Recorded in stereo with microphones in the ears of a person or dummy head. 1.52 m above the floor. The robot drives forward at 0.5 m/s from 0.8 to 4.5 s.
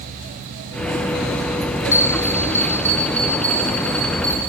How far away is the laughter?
I don't hear laughter.